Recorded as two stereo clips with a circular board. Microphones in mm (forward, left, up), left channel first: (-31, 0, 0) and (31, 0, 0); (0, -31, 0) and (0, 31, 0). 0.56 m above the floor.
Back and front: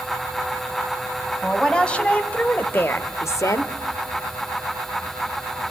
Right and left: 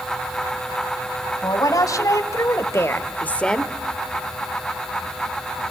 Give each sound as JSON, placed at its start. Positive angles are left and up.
{"t": 1.4, "sound": "a woman speaking", "azimuth_deg": -105, "distance_m": 3.5}